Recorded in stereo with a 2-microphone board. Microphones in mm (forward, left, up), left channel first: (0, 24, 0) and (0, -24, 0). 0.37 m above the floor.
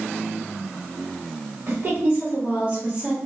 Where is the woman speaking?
50° right (ahead or behind), 1.4 m; by 3.2 s 25° right (ahead or behind), 1.1 m.